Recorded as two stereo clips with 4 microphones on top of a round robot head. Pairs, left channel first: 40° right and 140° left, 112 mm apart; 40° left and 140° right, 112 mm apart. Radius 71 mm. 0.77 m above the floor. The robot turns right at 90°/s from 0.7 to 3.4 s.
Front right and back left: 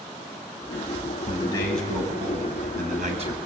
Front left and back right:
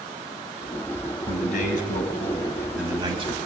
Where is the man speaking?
Straight ahead, 7 m; by 3.5 s 170° right, 7 m.